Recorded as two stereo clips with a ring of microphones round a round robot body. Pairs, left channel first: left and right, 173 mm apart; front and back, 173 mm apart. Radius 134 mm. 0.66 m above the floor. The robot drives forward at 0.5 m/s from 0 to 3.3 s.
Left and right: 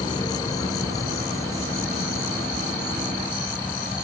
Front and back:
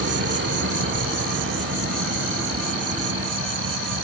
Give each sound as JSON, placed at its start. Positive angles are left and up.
{"t": 0.0, "sound": "an insect", "azimuth_deg": 160}